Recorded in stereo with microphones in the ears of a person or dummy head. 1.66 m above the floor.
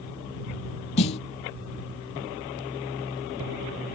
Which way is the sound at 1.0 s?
35° left (ahead or behind).